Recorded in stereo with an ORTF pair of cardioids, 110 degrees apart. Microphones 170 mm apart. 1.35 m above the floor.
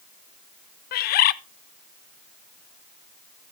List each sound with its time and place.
0.9 s a bird: 60° left, 0.5 m